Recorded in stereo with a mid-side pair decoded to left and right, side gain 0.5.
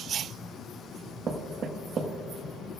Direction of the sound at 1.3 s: 50° right.